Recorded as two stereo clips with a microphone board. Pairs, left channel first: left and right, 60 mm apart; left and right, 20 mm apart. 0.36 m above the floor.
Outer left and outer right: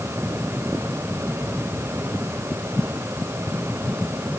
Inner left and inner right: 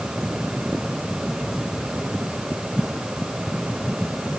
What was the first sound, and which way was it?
Only background noise.